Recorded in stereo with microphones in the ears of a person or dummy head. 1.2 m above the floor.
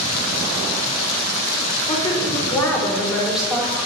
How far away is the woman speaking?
About 4.5 m.